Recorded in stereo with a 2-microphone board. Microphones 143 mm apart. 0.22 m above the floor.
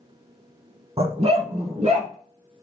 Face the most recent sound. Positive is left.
turn(degrees=-50)  # may be behind; listen again after turning